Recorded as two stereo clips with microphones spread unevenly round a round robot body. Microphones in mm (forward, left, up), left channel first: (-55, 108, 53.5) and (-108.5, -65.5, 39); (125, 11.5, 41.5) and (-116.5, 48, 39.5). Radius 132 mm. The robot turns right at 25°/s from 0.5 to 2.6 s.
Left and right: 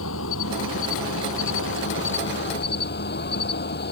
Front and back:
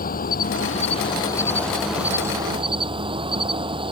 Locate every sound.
0.0 s an insect: 50° left; by 3.9 s 100° left